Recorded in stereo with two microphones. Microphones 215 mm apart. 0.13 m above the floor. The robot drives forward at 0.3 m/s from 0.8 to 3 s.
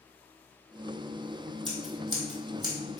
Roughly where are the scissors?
Right.